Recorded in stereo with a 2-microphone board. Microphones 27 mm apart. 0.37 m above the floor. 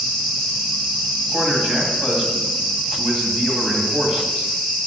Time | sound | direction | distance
1.3 | a man speaking | 40° right (ahead or behind) | 2.5 m